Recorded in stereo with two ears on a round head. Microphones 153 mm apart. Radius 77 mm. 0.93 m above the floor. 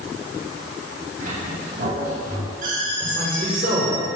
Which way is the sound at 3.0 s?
50° right (ahead or behind).